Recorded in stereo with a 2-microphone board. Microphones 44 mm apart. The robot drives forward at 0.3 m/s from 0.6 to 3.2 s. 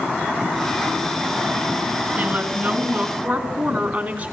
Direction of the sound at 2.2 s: 30° right (ahead or behind).